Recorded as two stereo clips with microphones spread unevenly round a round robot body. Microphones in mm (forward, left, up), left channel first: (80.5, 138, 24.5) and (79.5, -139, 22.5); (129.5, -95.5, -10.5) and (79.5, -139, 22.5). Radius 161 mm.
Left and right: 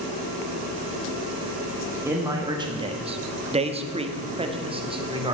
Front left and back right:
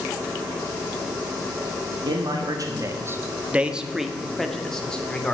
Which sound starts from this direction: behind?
A man speaking, at 2.0 s.